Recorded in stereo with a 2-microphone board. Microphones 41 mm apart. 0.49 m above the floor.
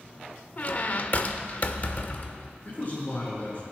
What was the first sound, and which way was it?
A squeak, 40° left (ahead or behind).